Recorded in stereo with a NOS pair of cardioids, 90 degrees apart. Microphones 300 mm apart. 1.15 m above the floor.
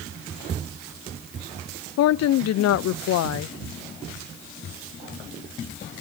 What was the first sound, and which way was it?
A woman speaking, 60° left.